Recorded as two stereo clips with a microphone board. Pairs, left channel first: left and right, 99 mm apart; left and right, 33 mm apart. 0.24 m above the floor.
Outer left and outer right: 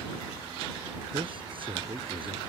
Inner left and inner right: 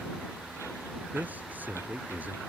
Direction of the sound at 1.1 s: 60° right (ahead or behind).